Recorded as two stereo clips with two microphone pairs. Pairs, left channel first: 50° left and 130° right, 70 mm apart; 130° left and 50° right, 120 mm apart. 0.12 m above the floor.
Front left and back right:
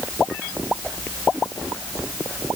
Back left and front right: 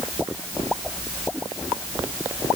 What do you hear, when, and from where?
Only background noise.